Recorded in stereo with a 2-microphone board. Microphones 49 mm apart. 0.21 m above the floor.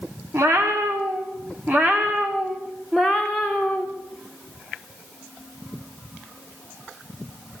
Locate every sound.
0.3 s a cat meowing: 55° right (ahead or behind), 4.5 m; by 3.9 s 15° left (ahead or behind), 5 m